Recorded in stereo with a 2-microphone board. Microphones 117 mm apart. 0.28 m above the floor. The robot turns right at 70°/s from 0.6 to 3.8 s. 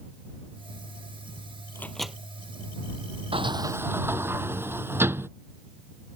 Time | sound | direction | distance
1.8 | a microwave | 20° left (ahead or behind) | ?
3.3 | a sliding door | 55° right | ?